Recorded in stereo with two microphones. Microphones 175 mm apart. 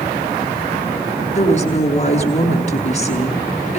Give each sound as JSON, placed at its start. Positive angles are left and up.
{"t": 1.4, "sound": "a woman speaking", "side_deg": 40, "distance_m": 6.0}